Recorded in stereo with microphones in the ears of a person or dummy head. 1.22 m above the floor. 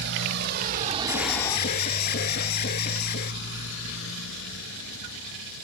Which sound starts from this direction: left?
An alarm, at 1.1 s.